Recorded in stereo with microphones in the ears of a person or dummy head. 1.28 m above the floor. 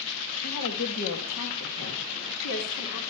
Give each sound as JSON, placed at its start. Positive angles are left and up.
{"t": 0.4, "sound": "a woman speaking", "side_deg": 50, "distance_m": 1.5}